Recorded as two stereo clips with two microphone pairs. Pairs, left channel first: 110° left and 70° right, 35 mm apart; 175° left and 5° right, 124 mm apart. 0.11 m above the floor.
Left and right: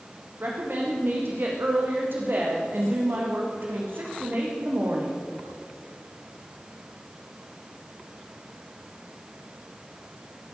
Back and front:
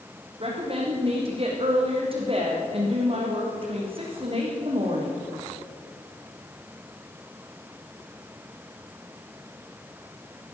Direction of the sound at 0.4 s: 50° right.